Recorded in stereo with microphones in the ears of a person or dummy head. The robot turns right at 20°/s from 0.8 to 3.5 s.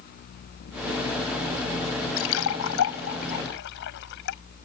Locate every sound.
2.2 s a splash: 85° left; by 4.4 s 60° left (ahead or behind)